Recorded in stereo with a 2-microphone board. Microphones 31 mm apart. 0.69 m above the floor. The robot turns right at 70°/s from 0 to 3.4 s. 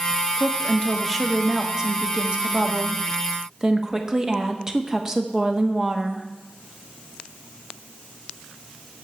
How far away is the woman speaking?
About 1.0 m.